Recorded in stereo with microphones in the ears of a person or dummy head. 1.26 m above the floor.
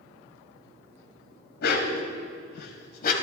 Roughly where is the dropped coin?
I don't hear a dropped coin.